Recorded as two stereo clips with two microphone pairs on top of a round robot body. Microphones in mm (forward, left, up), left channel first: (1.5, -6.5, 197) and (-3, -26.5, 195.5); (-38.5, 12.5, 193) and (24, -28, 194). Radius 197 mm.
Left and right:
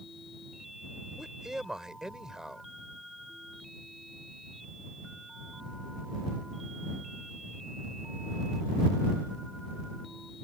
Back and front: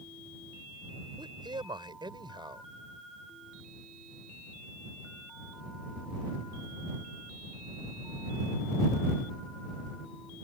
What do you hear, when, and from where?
1.2 s a man speaking: 40° right